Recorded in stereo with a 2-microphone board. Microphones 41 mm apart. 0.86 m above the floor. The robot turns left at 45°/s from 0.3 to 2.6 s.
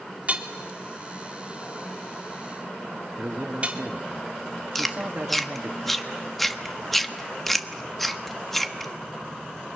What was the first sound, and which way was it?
Hammering, 40° right (ahead or behind).